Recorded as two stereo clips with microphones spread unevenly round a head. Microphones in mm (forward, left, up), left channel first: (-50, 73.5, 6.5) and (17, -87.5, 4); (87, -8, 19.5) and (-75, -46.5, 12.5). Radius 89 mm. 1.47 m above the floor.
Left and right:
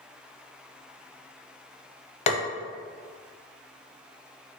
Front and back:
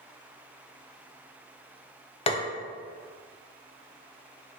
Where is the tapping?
65° left, 0.5 m.